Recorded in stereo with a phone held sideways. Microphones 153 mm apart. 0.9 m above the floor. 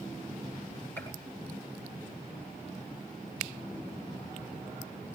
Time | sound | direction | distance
1.0 | a gunshot | 15° left (ahead or behind) | 8.5 m